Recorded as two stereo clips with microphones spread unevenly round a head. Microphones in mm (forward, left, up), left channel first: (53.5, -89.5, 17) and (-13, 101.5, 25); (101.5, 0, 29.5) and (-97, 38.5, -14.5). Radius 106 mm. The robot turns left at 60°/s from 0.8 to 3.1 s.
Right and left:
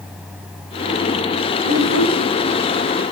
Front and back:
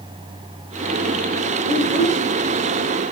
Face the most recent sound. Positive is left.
turn(degrees=-155)